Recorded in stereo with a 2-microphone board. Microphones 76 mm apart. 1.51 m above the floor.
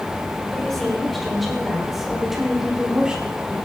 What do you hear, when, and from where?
0.5 s a woman speaking: 5° left (ahead or behind), 6.5 m; by 3.5 s 15° right (ahead or behind), 4.5 m